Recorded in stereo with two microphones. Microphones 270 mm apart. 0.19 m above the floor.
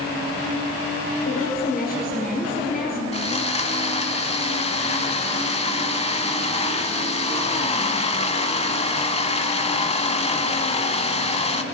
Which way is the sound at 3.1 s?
25° left (ahead or behind).